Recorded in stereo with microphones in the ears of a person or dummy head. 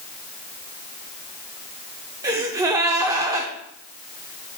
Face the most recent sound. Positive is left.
turn(degrees=-20)  # may be behind; listen again after turning